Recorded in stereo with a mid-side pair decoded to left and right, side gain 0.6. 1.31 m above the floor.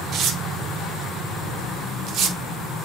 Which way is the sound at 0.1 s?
55° right.